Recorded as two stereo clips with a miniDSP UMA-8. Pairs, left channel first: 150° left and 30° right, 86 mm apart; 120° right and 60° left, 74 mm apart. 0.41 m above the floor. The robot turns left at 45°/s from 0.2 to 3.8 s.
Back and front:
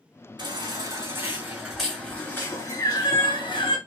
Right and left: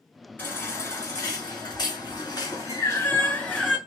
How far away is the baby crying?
About 1.8 m.